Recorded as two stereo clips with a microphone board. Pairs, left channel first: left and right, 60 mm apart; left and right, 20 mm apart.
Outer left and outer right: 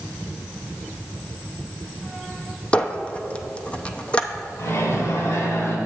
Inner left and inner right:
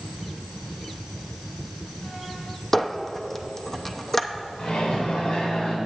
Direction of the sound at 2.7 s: 20° left (ahead or behind).